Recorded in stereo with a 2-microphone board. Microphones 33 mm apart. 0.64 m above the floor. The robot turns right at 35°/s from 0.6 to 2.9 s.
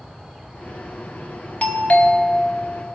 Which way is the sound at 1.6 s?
55° left.